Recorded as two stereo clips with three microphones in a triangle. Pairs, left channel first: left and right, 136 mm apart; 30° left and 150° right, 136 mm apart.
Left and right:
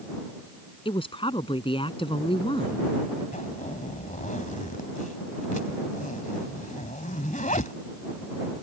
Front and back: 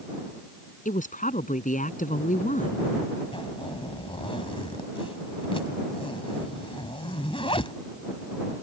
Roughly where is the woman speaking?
Ahead left.